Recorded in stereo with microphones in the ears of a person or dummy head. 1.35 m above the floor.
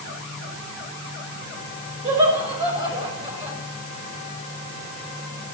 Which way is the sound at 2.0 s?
30° right (ahead or behind).